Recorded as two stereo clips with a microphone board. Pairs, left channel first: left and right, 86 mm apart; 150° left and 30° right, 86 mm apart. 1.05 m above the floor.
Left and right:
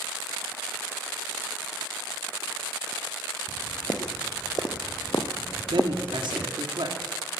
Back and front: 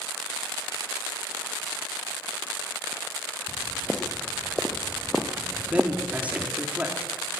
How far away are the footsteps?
About 3 m.